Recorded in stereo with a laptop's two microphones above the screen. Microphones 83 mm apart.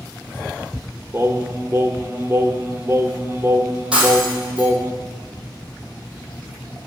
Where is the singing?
25° right (ahead or behind), 0.6 m.